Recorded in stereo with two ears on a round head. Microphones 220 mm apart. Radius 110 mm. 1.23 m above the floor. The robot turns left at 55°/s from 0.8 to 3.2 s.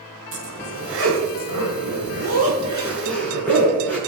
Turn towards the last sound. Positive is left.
turn(degrees=170)